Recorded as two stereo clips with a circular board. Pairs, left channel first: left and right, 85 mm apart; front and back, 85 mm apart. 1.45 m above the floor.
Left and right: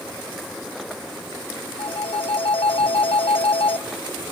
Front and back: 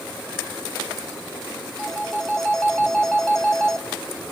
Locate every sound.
1.8 s a phone ringing: 80° left, 1.1 m